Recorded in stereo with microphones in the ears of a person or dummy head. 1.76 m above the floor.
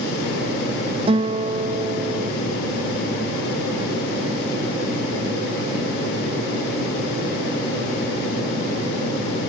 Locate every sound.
1.1 s a guitar: 25° right (ahead or behind)